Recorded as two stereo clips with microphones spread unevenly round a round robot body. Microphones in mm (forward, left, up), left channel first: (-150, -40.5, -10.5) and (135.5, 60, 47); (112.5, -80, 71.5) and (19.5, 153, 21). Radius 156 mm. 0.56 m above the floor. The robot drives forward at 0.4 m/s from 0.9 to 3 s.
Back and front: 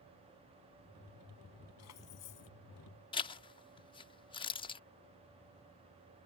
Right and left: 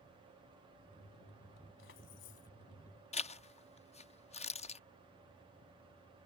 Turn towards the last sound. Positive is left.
turn(degrees=-130)